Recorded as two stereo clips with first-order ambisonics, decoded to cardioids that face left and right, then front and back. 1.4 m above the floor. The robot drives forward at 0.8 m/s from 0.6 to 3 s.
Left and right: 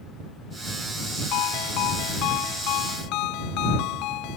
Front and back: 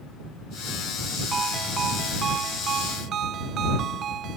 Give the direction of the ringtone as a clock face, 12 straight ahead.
8 o'clock.